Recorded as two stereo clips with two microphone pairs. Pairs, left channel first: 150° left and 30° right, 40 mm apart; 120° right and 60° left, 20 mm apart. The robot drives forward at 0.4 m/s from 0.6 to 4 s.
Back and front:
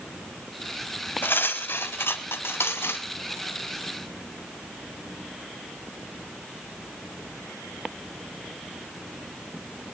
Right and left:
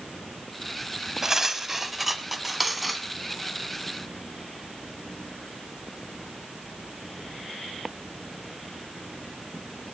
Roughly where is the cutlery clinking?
Behind left.